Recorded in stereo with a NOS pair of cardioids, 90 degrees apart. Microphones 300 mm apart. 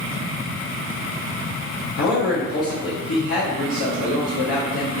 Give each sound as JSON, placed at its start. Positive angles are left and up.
{"t": 2.0, "sound": "a man speaking", "azimuth_deg": 50, "distance_m": 1.2}